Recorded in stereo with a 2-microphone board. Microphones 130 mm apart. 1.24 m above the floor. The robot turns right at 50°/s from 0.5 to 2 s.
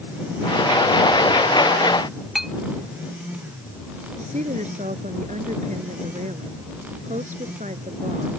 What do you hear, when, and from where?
2.4 s a clink: centre (ahead or behind)
4.2 s a woman speaking: 65° right (ahead or behind)